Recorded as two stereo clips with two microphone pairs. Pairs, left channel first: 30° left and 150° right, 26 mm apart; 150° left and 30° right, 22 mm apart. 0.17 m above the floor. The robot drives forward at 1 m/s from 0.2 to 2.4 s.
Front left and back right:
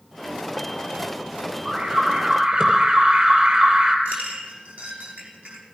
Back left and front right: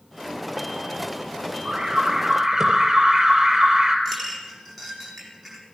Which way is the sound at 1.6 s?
90° right.